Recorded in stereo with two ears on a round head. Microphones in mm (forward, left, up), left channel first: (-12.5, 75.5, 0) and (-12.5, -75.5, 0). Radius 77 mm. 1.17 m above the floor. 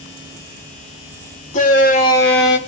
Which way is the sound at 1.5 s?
45° left (ahead or behind).